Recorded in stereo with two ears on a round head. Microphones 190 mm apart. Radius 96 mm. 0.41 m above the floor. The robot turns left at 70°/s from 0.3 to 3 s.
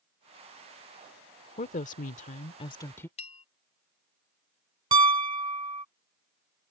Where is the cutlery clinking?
No cutlery clinking in this recording.